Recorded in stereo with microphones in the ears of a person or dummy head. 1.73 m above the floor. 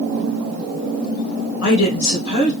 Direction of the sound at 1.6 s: 80° left.